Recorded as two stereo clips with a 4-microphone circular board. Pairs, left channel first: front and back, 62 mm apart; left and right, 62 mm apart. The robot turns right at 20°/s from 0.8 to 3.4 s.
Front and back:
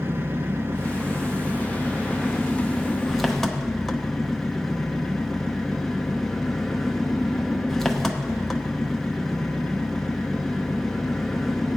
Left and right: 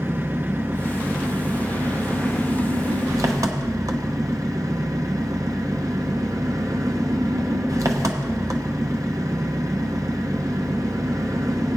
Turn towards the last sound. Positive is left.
turn(degrees=-85)